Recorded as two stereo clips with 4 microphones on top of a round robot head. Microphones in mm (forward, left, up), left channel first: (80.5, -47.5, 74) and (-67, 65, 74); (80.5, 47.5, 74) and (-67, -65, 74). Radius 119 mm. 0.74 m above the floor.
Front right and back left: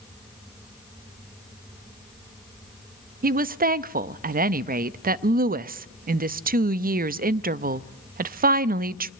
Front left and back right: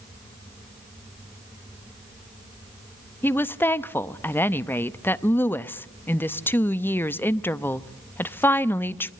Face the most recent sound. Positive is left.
turn(degrees=115)